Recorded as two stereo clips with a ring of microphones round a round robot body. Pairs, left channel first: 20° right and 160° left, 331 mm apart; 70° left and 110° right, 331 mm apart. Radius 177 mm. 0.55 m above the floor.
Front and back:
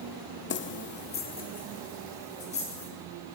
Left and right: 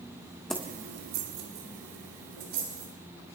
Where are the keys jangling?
15° right, 0.6 m; by 2.9 s 95° right, 3.5 m.